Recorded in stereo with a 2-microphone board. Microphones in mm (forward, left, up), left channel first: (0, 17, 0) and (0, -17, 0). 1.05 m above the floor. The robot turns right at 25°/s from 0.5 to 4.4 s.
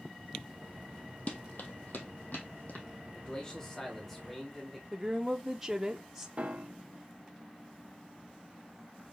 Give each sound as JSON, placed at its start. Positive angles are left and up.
{"t": 1.3, "sound": "running footsteps", "side_deg": 40, "distance_m": 1.8}
{"t": 3.1, "sound": "a man speaking", "azimuth_deg": 145, "distance_m": 2.0}
{"t": 4.9, "sound": "a woman speaking", "side_deg": -15, "distance_m": 0.7}
{"t": 6.4, "sound": "a piano", "side_deg": -50, "distance_m": 0.6}